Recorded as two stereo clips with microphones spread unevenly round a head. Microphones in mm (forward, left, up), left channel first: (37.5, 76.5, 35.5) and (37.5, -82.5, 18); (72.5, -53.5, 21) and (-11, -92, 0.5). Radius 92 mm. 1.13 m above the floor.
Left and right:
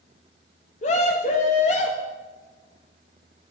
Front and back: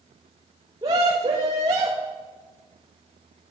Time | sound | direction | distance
0.8 | a scream | 145° left | 1.5 m